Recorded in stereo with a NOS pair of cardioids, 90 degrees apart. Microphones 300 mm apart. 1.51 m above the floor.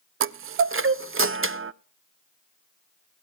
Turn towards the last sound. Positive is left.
turn(degrees=-45)